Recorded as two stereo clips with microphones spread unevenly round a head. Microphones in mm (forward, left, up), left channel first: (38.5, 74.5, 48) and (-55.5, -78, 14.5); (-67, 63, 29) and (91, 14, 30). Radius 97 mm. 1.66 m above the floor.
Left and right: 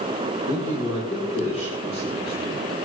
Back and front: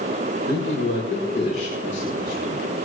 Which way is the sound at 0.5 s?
110° left.